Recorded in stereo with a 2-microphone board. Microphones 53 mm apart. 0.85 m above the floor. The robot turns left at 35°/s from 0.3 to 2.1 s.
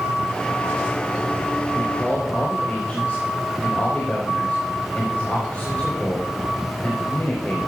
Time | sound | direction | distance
1.8 | a man speaking | 15° left (ahead or behind) | 4.5 m